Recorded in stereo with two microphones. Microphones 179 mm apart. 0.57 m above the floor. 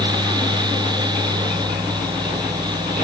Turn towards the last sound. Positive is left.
No sound to turn to.